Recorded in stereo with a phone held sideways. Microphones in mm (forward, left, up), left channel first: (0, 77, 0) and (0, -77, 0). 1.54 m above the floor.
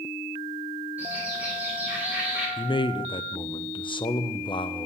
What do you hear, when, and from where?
1.0 s a bird: 10° right (ahead or behind), 6 m
2.6 s a man speaking: 35° left (ahead or behind), 0.5 m